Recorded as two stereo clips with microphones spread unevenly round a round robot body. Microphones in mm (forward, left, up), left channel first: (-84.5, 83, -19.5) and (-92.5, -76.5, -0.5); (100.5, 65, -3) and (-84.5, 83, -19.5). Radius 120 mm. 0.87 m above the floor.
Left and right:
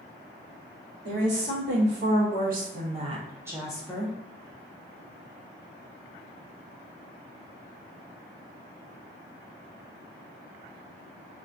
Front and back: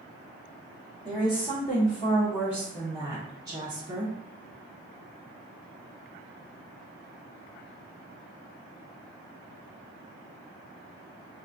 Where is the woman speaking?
95° right, 1.4 m; by 4.2 s 135° left, 0.7 m.